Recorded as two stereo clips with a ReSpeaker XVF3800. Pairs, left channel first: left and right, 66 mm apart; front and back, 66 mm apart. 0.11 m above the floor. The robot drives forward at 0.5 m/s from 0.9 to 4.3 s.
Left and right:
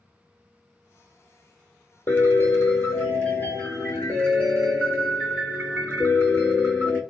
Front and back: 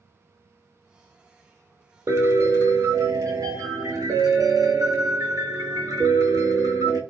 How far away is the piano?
About 1.0 m.